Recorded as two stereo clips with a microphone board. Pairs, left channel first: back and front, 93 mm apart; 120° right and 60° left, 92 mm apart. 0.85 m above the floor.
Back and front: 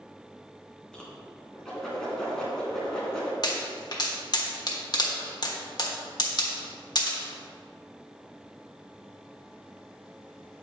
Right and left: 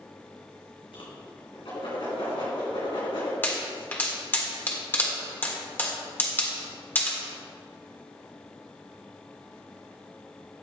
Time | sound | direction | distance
0.9 | a whoosh | 95° right | 3 m
3.4 | a pop | straight behind | 1.4 m